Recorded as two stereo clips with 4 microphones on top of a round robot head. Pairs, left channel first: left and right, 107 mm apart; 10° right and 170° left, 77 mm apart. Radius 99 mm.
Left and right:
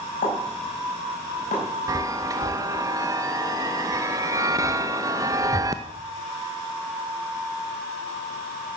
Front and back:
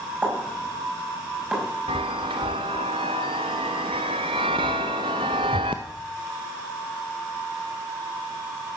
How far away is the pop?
About 5.5 m.